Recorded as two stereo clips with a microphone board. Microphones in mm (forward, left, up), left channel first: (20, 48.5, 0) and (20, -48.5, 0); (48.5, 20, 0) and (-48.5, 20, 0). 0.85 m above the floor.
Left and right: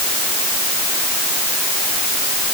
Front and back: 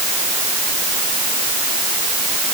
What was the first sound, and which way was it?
Only background noise.